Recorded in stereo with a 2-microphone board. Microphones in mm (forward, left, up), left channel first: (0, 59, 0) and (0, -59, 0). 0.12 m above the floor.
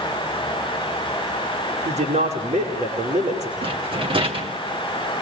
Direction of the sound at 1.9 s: 75° right (ahead or behind).